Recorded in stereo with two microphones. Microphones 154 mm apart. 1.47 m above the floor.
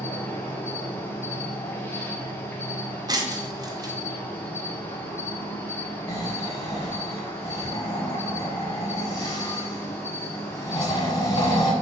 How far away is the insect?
About 0.8 m.